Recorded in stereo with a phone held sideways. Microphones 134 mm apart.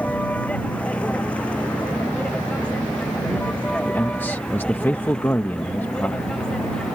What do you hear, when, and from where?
0.0 s a vehicle: 10° left (ahead or behind); by 7.0 s 5° left (ahead or behind)
3.9 s a man speaking: 15° left (ahead or behind)